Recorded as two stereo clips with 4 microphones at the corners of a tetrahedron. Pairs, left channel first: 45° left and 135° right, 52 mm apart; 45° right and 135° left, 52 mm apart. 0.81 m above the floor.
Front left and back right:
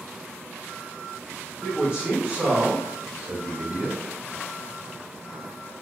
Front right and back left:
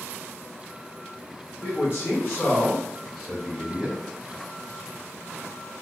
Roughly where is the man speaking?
Ahead right.